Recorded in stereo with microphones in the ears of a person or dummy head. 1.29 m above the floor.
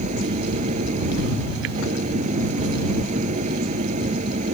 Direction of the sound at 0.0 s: 40° right (ahead or behind).